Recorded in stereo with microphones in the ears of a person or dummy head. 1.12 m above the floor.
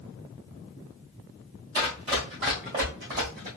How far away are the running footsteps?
About 1.5 m.